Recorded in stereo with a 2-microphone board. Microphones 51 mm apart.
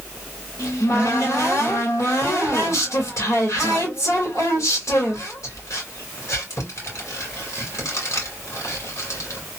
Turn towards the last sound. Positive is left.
turn(degrees=75)  # may be behind; listen again after turning